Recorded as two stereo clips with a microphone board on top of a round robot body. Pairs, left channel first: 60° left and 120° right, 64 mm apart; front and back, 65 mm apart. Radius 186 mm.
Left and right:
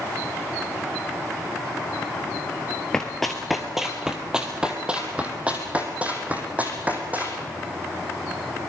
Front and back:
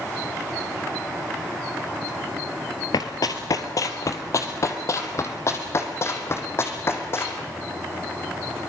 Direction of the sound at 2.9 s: 20° right.